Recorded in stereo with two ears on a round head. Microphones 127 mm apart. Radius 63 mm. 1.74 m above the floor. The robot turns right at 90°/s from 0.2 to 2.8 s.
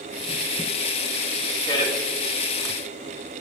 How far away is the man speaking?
About 1.0 m.